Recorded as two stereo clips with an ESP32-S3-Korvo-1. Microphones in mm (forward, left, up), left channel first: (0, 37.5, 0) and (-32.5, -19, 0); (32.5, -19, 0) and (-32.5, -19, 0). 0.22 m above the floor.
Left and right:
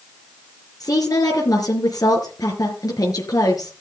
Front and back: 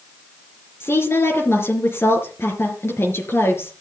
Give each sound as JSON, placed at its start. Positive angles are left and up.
{"t": 0.8, "sound": "a woman speaking", "azimuth_deg": 50, "distance_m": 4.0}